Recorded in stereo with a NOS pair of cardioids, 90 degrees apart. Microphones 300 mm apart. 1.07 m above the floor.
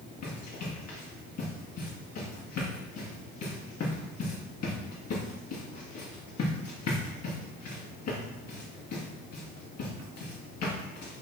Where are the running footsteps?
60° left, 4.5 m.